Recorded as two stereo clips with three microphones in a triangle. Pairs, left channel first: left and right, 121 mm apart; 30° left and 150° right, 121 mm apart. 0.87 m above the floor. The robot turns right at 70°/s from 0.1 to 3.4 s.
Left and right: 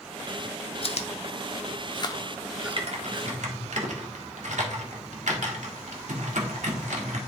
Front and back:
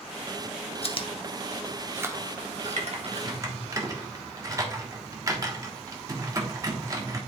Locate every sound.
0.8 s chewing: 60° left, 0.7 m; by 3.8 s 120° right, 0.7 m
2.8 s typing on a keyboard: 130° right, 1.3 m; by 7.2 s 85° right, 1.3 m